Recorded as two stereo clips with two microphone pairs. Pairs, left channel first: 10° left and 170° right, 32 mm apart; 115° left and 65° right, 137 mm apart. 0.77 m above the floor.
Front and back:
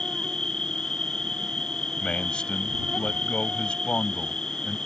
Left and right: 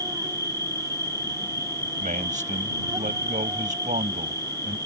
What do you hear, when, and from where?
0.0 s an insect: 40° right
2.0 s a man speaking: 40° right